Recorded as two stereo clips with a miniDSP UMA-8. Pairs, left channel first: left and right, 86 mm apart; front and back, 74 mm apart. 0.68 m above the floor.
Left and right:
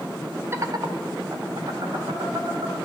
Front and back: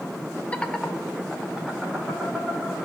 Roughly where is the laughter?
Ahead right.